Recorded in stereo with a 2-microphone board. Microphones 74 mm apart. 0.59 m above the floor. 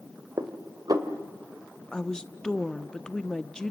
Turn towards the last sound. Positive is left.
turn(degrees=10)  # may be behind; listen again after turning